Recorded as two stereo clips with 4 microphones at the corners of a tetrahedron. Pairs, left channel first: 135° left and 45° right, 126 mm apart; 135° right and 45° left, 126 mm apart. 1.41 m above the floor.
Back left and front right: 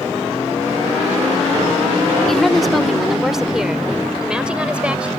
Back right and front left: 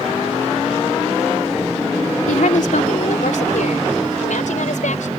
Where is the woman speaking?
140° right; by 5.1 s 125° right.